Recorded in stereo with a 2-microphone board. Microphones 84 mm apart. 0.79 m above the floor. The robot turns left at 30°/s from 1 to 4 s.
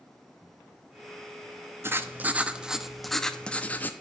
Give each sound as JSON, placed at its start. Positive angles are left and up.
{"t": 1.8, "sound": "writing", "azimuth_deg": -145, "distance_m": 0.8}